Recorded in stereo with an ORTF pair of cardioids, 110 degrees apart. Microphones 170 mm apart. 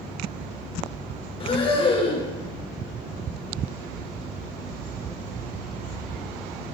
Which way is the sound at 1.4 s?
30° left.